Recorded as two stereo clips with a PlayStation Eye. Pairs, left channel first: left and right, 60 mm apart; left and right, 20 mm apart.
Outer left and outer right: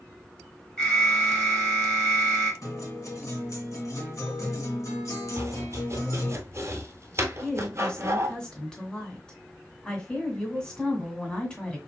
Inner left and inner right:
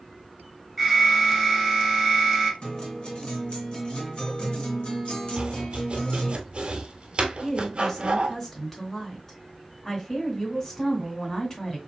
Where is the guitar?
60° left (ahead or behind), 2.5 m.